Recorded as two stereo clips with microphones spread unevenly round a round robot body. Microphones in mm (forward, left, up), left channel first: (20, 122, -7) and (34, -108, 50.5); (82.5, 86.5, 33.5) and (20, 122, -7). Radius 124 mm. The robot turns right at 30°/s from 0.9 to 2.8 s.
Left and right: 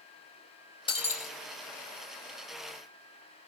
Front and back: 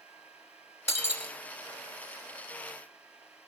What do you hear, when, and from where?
0.9 s breaking glass: 25° left, 3 m; by 1.3 s 35° left, 3 m